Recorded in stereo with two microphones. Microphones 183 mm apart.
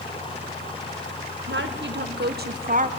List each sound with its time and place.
1.5 s a woman speaking: 75° right (ahead or behind), 1.7 m; by 2.9 s 40° right (ahead or behind), 1.0 m